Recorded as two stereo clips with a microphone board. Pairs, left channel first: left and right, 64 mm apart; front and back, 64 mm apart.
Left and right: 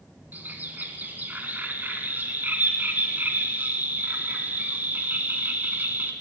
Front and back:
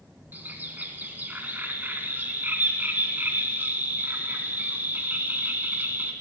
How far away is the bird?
About 1.5 m.